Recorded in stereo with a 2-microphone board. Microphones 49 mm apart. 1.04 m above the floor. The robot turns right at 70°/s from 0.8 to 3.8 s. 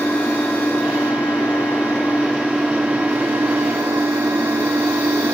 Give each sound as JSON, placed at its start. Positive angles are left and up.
{"t": 0.0, "sound": "an engine running", "azimuth_deg": 50, "distance_m": 1.9}